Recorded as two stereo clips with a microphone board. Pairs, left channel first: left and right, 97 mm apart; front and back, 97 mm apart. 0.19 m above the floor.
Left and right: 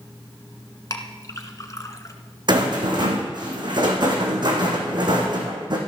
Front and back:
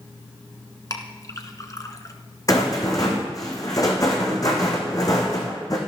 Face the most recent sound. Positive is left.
turn(degrees=-50)